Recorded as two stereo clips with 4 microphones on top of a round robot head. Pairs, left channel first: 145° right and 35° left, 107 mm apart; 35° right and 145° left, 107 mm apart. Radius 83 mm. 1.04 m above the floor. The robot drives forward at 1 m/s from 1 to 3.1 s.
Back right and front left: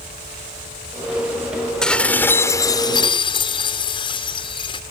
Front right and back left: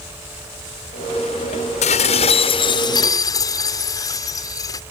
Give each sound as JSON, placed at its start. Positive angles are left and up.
{"t": 1.8, "sound": "dishes clattering", "azimuth_deg": -60}